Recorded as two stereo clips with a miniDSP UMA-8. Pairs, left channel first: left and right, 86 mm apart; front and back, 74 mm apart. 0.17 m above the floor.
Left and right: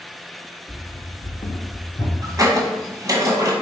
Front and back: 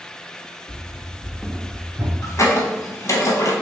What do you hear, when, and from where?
0.7 s running footsteps: 20° left, 0.9 m; by 2.1 s 140° left, 1.1 m
2.2 s a squeak: 40° right, 0.8 m